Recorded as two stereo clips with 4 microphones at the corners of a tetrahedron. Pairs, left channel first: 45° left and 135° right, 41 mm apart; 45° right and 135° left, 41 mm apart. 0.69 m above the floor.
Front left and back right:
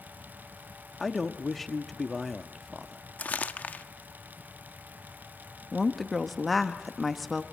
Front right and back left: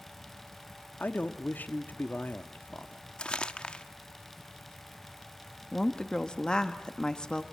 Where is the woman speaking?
45° right, 1.1 m.